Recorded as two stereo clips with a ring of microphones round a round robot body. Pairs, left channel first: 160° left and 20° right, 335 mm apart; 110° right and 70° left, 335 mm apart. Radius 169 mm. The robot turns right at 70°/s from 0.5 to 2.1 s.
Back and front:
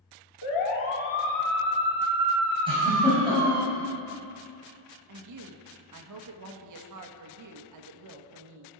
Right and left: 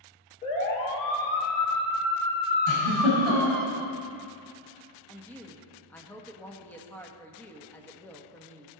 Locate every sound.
0.4 s a siren: 175° left, 3 m; by 3.7 s 20° right, 1.3 m
2.7 s a giggle: 95° right, 6 m
5.1 s a woman speaking: 30° right, 1.4 m